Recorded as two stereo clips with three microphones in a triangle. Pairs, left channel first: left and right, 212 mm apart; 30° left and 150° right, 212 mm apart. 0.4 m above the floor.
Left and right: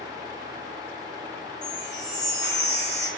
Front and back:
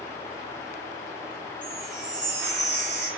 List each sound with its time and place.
1.6 s a chime: 60° left, 1.0 m